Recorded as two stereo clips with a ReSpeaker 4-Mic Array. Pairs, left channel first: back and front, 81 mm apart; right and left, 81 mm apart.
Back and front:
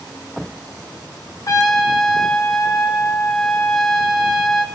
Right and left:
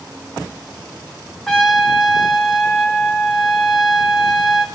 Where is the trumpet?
175° right, 2.5 m.